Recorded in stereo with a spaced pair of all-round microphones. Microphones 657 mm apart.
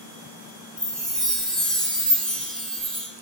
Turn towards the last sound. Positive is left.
turn(degrees=0)  # may be behind; listen again after turning